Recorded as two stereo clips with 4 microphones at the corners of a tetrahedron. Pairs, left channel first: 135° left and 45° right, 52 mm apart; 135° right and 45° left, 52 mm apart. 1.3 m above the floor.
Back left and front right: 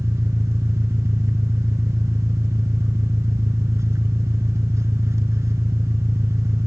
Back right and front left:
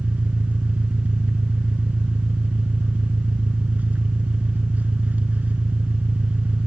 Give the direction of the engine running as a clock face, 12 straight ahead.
1 o'clock.